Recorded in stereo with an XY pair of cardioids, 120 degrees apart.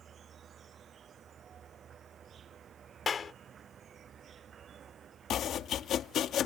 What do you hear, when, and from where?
0.0 s an insect: 45° right
3.1 s a clap: 35° left
5.3 s chopping: 60° left